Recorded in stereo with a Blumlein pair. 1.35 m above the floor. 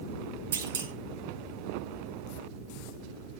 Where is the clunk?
65° right, 0.8 m.